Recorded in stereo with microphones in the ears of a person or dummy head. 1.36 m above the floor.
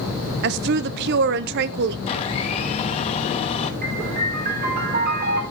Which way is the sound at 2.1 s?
30° left (ahead or behind).